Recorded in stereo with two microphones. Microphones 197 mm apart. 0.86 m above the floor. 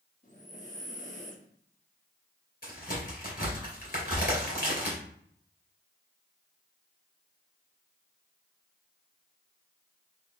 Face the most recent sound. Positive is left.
turn(degrees=50)  # may be behind; listen again after turning